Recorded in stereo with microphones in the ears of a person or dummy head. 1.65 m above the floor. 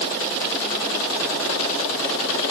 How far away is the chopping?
No chopping in this recording.